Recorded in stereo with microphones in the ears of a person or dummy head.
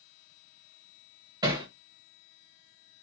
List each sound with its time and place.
1.4 s hammering: 20° right (ahead or behind), 0.9 m